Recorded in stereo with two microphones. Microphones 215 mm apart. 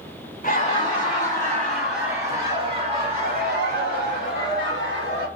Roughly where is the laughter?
Left.